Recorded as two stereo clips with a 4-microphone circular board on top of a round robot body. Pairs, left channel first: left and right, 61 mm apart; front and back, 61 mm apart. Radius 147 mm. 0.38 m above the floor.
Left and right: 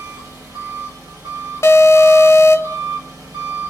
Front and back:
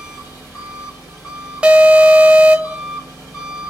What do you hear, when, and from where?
0.0 s an engine running: 90° right, 3 m
1.6 s an alarm: 110° left, 0.6 m